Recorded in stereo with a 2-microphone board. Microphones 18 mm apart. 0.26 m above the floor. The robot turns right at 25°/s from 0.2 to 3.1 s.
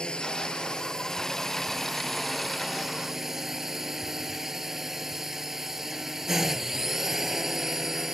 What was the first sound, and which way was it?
A drone, 130° left.